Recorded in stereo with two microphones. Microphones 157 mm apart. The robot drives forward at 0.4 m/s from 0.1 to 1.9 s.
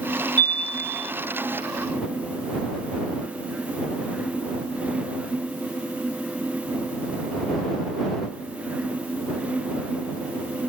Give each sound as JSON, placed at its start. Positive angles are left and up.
{"t": 0.4, "sound": "a chime", "side_deg": 10, "distance_m": 0.6}